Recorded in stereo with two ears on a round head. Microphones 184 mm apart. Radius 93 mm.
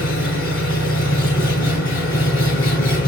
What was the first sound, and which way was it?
An engine running, 75° left (ahead or behind).